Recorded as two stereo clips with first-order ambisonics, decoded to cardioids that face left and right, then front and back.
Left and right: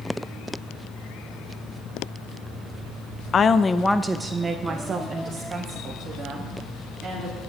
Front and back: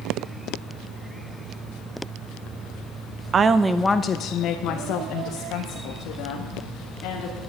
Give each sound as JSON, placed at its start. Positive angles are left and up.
{"t": 3.3, "sound": "a woman speaking", "azimuth_deg": 140, "distance_m": 0.6}